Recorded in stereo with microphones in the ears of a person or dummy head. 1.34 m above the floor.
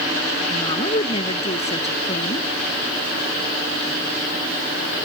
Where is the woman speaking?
35° left (ahead or behind).